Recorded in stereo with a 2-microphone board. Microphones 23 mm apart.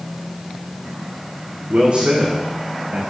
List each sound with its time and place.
1.7 s a man speaking: 50° right (ahead or behind), 8 m; by 3.0 s 55° right (ahead or behind), 7.5 m